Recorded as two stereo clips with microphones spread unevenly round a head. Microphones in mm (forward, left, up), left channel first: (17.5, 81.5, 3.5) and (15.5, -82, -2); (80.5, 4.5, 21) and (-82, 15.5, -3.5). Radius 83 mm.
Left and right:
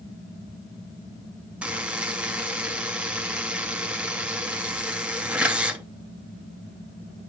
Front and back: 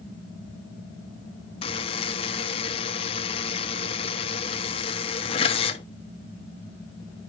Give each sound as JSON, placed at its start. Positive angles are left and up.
{"t": 1.6, "sound": "a buzzer", "azimuth_deg": -10, "distance_m": 0.7}